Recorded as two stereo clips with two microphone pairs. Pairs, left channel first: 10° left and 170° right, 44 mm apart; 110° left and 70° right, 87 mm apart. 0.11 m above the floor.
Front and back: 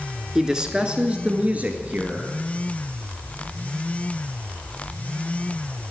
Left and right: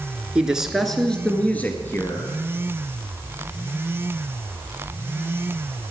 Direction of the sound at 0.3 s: 125° right.